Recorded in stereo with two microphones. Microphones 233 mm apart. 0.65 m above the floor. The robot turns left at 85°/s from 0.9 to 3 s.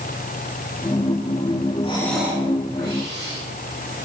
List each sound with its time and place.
1.8 s breathing: 30° left, 6.5 m; by 3.4 s 70° right, 6.5 m